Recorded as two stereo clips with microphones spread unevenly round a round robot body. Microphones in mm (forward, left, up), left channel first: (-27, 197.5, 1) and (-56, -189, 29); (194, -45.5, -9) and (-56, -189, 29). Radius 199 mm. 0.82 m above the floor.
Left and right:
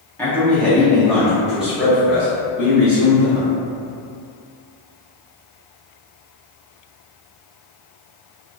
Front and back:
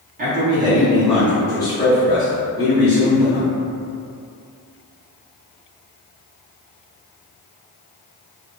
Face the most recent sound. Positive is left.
turn(degrees=-10)